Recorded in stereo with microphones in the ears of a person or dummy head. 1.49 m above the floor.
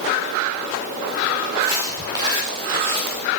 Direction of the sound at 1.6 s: 15° right (ahead or behind).